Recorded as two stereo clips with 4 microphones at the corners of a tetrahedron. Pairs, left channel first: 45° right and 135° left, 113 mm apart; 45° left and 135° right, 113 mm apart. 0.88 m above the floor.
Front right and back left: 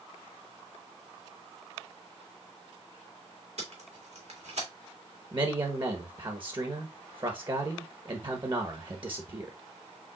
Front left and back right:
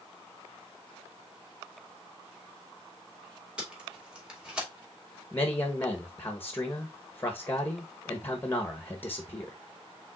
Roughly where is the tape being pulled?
Behind left.